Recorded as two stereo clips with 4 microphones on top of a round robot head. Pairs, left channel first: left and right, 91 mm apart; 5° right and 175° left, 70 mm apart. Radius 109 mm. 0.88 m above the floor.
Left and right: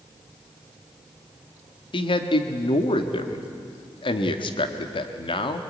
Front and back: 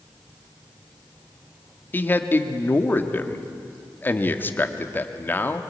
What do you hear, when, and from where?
1.9 s a man speaking: 55° left, 1.6 m